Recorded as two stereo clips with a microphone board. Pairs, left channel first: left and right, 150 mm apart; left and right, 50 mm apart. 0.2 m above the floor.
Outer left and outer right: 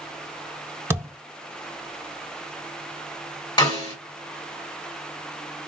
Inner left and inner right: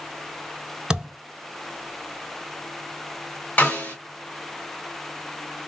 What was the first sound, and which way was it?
A thud, 20° right (ahead or behind).